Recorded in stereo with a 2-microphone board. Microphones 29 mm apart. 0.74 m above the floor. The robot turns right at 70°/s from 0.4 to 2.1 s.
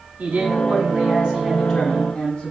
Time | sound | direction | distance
0.2 | a man speaking | 90° right | 8 m